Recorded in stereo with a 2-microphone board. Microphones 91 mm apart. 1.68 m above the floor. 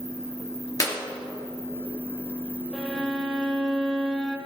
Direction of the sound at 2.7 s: 10° left (ahead or behind).